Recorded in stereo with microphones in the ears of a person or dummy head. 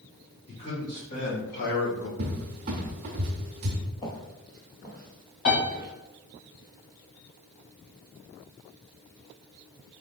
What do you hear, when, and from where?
0.5 s a man speaking: 35° left (ahead or behind), 2.5 m; by 2.1 s 75° left (ahead or behind), 1.0 m
2.2 s a cupboard door: 30° right (ahead or behind), 0.8 m
4.0 s footsteps: 25° left (ahead or behind), 1.4 m; by 5.9 s 30° right (ahead or behind), 1.4 m
5.5 s a piano: 65° left (ahead or behind), 2 m